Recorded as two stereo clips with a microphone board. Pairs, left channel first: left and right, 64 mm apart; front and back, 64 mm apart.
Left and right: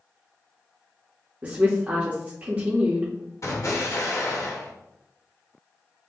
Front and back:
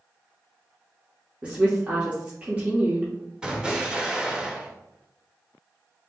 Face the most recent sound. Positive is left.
turn(degrees=110)